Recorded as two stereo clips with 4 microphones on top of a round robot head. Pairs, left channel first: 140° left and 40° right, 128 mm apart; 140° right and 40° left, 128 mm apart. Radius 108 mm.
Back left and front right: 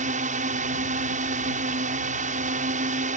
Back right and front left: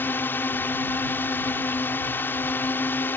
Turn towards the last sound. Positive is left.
turn(degrees=-65)